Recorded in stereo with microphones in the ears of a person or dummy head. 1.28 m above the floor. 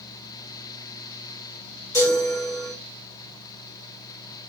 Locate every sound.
1.9 s a chime: 20° left (ahead or behind), 2.5 m